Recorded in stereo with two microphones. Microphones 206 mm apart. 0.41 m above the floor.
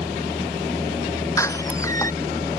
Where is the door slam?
15° left (ahead or behind).